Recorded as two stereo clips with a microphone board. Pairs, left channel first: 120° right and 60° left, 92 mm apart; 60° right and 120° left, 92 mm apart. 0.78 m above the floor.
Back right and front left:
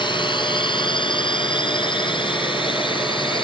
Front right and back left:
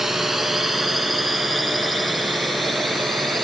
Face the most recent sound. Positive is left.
turn(degrees=-150)